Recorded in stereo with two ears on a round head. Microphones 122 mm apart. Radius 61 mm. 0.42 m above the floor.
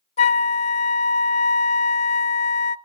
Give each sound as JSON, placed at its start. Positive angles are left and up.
{"t": 0.2, "sound": "a flute", "side_deg": 45, "distance_m": 0.6}